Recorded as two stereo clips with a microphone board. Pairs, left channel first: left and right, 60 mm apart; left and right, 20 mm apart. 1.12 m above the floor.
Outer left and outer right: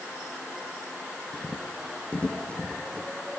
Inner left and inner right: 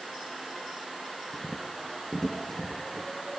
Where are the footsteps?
15° left (ahead or behind), 2.5 m; by 3.1 s 20° left (ahead or behind), 3 m.